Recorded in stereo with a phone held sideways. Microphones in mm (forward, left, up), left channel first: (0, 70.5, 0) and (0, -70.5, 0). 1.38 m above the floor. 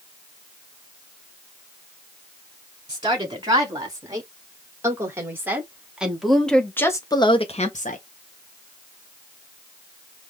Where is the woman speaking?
30° right (ahead or behind), 3.5 m; by 8.0 s 65° left (ahead or behind), 1.0 m.